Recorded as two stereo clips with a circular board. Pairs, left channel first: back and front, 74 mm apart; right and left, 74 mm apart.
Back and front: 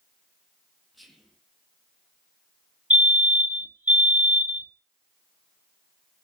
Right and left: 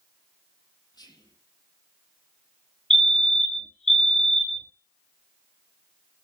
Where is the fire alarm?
15° right, 2 m.